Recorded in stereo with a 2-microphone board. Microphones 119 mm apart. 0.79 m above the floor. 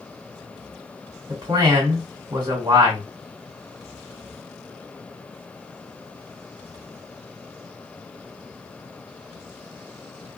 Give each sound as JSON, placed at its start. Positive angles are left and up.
{"t": 1.3, "sound": "a man speaking", "side_deg": -45, "distance_m": 1.6}